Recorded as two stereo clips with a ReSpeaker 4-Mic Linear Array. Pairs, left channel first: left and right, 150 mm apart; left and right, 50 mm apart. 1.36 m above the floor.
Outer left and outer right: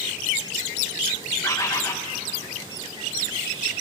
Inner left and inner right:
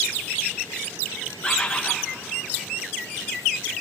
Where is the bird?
20° left (ahead or behind), 1.2 m.